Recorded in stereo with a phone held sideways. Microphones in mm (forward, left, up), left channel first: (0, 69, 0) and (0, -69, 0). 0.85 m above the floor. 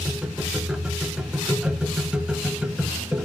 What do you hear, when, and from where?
0.0 s a machine running: 5° right (ahead or behind), 0.7 m